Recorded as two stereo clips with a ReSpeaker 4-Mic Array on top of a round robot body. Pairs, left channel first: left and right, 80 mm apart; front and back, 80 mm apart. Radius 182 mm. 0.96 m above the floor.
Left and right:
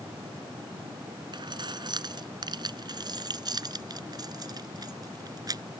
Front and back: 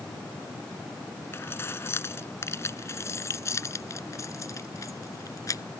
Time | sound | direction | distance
1.3 | keys jangling | 60° right | ?